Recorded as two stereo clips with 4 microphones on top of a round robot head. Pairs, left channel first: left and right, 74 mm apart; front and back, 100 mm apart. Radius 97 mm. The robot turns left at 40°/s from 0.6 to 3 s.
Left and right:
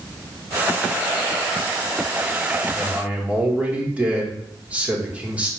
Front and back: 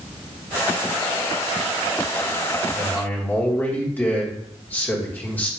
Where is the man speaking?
30° right, 1.1 m; by 5.5 s 40° right, 1.1 m.